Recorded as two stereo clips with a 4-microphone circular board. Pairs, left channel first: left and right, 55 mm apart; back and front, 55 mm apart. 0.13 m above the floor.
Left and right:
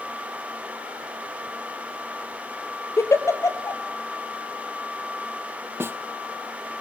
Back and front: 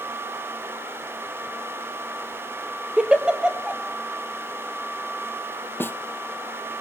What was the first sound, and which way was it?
A giggle, 70° left.